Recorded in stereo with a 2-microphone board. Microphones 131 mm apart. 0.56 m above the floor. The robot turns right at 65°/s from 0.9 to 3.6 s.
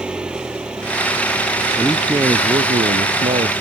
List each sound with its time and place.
0.0 s an engine running: 5° right; by 3.6 s 170° left
1.8 s a man speaking: 170° left; by 3.5 s 75° right